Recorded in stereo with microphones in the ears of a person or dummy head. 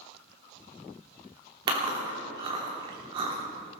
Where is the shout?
I don't hear a shout.